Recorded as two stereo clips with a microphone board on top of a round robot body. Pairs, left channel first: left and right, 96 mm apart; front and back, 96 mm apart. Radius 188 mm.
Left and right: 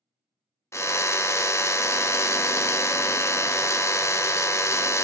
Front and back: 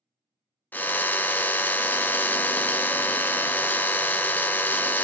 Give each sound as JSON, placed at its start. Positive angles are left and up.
{"t": 0.7, "sound": "a drill", "azimuth_deg": 55, "distance_m": 0.9}